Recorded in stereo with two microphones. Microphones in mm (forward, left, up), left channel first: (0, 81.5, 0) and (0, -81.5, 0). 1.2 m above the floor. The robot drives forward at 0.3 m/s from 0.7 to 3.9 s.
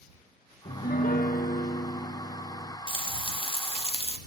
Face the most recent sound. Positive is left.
turn(degrees=35)  # may be behind; listen again after turning